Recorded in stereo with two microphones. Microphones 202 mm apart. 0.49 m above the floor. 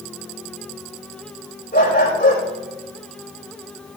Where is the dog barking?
55° left (ahead or behind), 6.5 m.